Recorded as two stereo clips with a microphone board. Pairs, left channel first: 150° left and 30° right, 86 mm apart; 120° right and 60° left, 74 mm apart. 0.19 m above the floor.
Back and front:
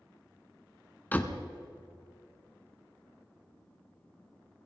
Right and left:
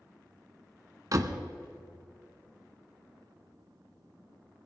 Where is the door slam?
85° left, 1.2 m.